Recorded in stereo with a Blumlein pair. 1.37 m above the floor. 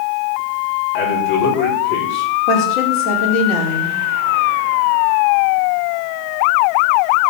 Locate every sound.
0.9 s a man speaking: 45° left, 4.5 m
2.5 s a woman speaking: 35° left, 4.5 m